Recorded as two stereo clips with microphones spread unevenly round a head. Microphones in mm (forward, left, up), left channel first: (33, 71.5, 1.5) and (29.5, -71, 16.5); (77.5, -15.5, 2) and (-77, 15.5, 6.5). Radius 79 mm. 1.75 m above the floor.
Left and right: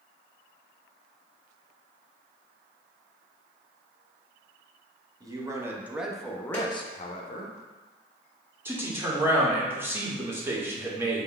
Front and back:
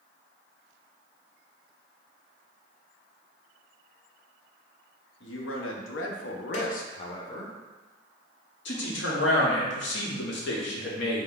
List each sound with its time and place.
5.2 s a man speaking: 25° right, 1.0 m; by 7.5 s 65° left, 0.7 m
6.5 s a snare drum: 5° left, 1.0 m
8.7 s a man speaking: 20° right, 1.0 m